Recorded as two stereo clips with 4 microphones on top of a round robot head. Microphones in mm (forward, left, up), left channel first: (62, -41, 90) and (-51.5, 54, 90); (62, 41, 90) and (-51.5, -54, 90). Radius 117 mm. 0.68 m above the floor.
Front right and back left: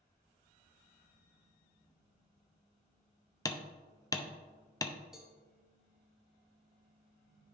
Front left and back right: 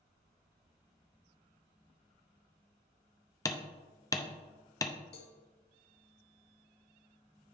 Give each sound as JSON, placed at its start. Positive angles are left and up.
{"t": 3.5, "sound": "hammering", "azimuth_deg": 0, "distance_m": 0.7}
{"t": 5.1, "sound": "a cowbell", "azimuth_deg": 55, "distance_m": 1.0}